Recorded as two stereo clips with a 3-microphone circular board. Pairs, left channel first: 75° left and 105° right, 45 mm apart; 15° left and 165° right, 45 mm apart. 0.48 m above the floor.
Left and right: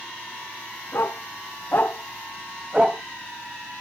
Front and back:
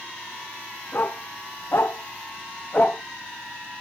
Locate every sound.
0.9 s a dog barking: 50° left, 2 m; by 3.0 s 45° right, 1.2 m